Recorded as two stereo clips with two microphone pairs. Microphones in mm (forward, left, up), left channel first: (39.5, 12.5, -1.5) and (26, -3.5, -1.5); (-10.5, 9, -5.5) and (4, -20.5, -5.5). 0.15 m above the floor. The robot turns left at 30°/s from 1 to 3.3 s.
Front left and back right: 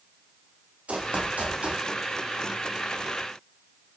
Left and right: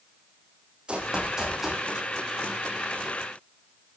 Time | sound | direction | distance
0.9 | running footsteps | 125° right | 5 m